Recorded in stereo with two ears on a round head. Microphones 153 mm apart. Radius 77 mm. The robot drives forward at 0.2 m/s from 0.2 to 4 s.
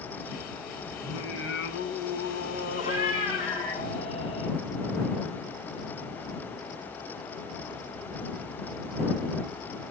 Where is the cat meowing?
40° left (ahead or behind), 2.5 m; by 4.5 s 35° left (ahead or behind), 3 m.